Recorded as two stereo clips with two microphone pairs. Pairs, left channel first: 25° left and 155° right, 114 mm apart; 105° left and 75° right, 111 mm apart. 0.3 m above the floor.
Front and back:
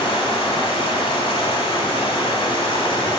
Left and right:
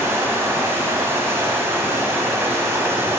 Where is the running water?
10° right, 1.2 m.